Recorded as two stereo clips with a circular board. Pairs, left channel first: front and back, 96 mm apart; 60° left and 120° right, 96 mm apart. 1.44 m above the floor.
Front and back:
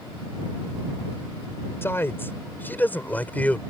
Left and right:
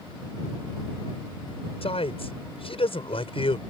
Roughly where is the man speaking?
Ahead left.